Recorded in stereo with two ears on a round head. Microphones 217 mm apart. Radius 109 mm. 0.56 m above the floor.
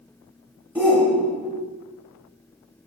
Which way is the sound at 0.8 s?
5° right (ahead or behind).